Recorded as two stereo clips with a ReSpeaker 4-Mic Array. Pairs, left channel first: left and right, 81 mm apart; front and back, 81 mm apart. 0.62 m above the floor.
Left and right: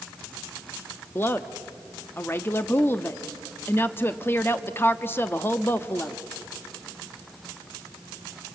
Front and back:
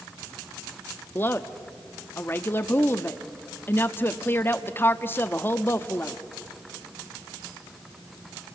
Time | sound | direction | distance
1.1 | a woman speaking | 45° left | 0.7 m